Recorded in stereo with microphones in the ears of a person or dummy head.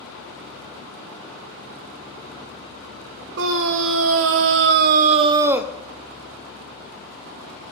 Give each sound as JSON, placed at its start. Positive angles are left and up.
{"t": 3.4, "sound": "a scream", "side_deg": -65, "distance_m": 1.5}